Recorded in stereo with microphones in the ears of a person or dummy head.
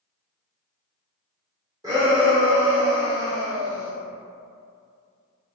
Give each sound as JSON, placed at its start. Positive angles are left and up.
{"t": 1.8, "sound": "a shout", "side_deg": -20, "distance_m": 0.5}